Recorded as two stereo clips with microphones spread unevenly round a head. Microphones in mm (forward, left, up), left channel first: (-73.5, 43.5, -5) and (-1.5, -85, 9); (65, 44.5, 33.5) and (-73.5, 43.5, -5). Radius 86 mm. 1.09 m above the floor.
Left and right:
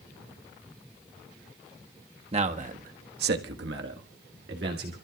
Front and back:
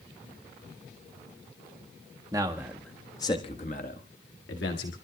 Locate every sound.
2.3 s a man speaking: 110° right, 1.5 m; by 5.0 s 20° right, 2.5 m